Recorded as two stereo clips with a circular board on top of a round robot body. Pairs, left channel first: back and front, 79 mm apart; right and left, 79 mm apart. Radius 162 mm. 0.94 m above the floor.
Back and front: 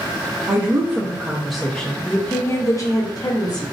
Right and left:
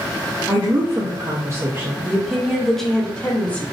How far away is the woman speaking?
About 1.0 m.